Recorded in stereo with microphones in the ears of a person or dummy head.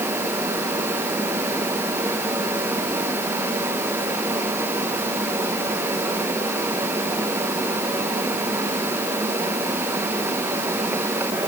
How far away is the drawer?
No drawer in this recording.